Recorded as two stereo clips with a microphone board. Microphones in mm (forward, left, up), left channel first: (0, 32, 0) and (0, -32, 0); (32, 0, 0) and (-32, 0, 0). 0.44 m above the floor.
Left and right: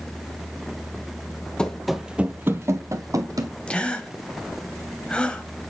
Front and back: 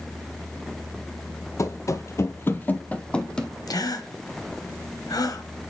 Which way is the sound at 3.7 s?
15° left.